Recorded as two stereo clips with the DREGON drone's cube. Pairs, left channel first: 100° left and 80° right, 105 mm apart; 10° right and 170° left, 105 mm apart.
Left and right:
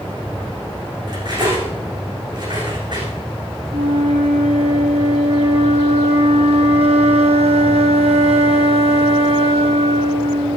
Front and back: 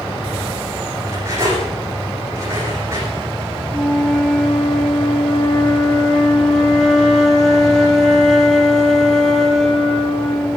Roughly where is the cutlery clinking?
Behind right.